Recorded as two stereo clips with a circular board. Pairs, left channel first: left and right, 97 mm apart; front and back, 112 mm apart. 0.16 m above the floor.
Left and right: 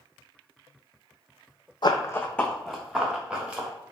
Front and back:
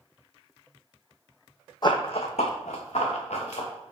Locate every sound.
1.8 s running footsteps: 50° left, 0.6 m; by 3.9 s 15° right, 2 m